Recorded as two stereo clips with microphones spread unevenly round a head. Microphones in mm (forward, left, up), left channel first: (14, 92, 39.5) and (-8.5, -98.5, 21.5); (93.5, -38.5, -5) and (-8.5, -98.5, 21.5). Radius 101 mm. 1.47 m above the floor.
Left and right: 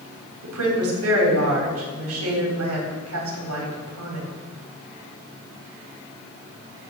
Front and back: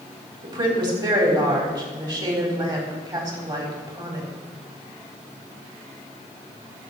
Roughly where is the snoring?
No snoring in this recording.